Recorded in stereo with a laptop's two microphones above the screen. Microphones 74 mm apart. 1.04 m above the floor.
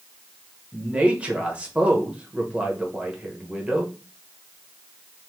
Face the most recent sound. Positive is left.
turn(degrees=-15)  # may be behind; listen again after turning